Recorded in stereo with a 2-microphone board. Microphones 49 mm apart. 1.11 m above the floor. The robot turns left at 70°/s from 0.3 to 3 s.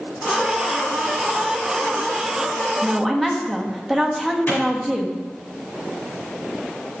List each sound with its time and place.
2.8 s a woman speaking: 10° right (ahead or behind), 1.2 m; by 5.2 s centre (ahead or behind), 1.2 m
4.5 s a clap: 45° left (ahead or behind), 3.5 m